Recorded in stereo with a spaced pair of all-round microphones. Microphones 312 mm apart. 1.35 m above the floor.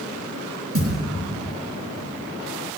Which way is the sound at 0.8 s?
45° right (ahead or behind).